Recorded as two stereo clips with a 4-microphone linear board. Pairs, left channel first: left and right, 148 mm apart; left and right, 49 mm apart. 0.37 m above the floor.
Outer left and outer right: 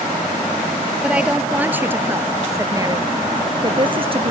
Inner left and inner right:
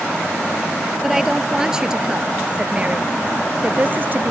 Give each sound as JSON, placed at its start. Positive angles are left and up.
{"t": 1.0, "sound": "a woman speaking", "side_deg": -5}